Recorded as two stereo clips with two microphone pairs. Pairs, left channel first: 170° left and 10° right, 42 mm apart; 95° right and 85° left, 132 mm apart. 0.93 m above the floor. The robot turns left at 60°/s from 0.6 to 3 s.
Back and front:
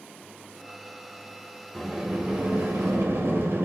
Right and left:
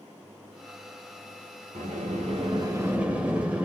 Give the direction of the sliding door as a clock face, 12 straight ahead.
9 o'clock.